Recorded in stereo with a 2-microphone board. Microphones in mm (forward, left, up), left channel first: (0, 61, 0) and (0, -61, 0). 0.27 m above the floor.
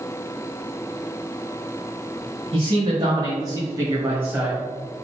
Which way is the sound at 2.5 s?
45° right (ahead or behind).